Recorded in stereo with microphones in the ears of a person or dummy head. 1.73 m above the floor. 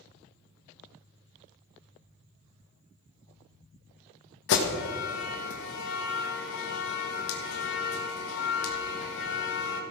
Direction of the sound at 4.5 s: 65° left (ahead or behind).